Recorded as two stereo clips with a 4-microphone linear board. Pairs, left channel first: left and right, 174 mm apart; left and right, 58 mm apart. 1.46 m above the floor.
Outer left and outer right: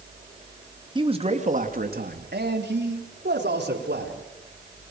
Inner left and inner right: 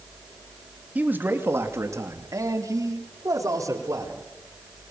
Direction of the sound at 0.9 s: 25° right (ahead or behind).